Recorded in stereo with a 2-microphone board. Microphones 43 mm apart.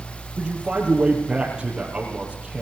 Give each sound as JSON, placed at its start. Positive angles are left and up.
{"t": 0.4, "sound": "a man speaking", "side_deg": -20, "distance_m": 4.5}